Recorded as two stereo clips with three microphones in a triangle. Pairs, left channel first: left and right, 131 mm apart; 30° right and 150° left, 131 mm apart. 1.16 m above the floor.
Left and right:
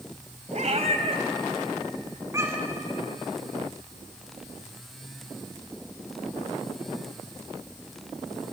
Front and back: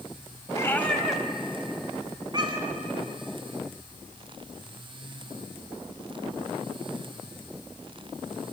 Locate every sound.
0.5 s a cat meowing: 90° right, 1.6 m; by 2.8 s 165° right, 3 m